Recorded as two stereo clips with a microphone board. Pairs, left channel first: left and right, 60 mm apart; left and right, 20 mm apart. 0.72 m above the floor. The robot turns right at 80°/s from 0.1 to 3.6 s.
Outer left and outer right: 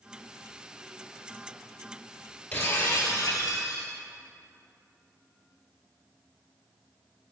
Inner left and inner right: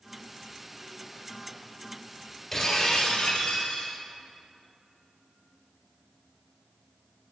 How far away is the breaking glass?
About 2.5 m.